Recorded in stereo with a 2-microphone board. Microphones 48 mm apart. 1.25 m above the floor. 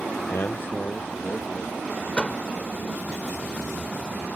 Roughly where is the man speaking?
Left.